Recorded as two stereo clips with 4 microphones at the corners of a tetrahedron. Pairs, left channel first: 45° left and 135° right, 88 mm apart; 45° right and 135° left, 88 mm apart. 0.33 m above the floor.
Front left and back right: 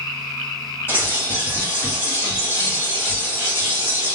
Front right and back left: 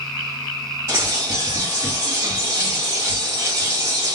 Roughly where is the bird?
Left.